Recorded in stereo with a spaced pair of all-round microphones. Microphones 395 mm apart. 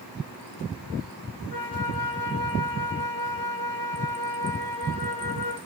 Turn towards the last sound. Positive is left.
turn(degrees=-70)  # may be behind; listen again after turning